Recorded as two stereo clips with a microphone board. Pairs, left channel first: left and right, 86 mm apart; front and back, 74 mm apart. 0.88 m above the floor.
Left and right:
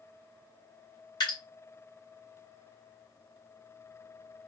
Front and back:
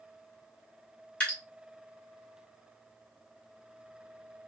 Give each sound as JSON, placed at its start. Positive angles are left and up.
{"t": 1.2, "sound": "dripping", "azimuth_deg": 70, "distance_m": 2.5}